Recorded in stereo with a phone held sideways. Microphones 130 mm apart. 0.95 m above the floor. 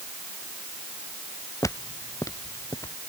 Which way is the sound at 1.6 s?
25° left (ahead or behind).